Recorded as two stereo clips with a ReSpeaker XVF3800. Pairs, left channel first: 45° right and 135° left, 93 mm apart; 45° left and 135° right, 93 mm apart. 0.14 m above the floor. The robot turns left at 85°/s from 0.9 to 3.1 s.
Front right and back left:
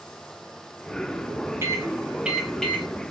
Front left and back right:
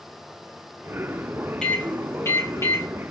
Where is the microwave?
120° left, 1.0 m; by 2.9 s 10° left, 1.0 m.